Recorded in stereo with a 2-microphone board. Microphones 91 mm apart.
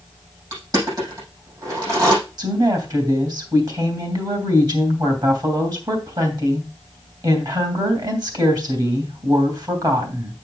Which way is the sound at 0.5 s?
40° right (ahead or behind).